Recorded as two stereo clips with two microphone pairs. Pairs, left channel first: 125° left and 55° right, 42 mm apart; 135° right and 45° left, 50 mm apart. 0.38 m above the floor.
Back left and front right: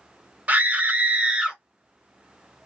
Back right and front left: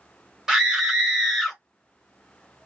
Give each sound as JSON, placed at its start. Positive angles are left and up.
{"t": 0.5, "sound": "a scream", "azimuth_deg": -25, "distance_m": 1.2}